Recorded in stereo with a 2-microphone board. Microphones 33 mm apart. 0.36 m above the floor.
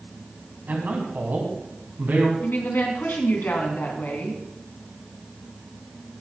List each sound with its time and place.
0.7 s a man speaking: 65° right (ahead or behind), 3.5 m
2.4 s a woman speaking: 70° left (ahead or behind), 3.5 m